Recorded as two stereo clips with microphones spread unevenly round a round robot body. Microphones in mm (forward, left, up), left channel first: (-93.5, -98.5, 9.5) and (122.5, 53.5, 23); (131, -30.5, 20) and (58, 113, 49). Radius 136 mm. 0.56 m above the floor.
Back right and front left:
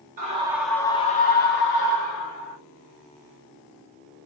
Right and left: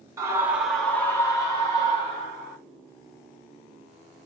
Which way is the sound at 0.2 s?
45° left.